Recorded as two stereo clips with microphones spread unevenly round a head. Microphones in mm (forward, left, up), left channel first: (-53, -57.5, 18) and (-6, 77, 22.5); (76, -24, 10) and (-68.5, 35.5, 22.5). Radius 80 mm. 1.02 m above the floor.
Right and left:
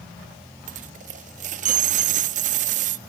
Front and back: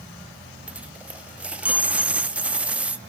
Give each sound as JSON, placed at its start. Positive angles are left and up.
{"t": 0.7, "sound": "a dropped coin", "azimuth_deg": 80, "distance_m": 0.5}